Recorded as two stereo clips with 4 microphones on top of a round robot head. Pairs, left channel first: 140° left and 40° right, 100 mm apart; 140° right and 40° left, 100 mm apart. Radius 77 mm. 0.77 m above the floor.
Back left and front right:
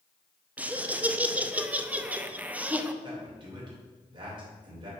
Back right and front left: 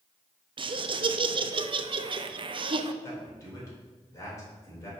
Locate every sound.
0.6 s laughter: 35° left, 0.7 m
3.0 s a man speaking: 80° right, 2.5 m